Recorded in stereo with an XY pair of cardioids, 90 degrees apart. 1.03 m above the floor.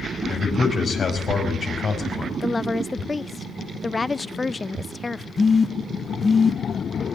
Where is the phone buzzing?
35° left, 1.0 m.